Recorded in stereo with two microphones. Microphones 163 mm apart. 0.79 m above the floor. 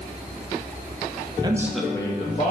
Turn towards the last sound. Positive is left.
turn(degrees=50)  # may be behind; listen again after turning